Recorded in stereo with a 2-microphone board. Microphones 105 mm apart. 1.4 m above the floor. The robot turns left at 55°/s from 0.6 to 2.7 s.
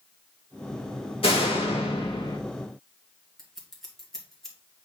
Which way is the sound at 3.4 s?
5° left (ahead or behind).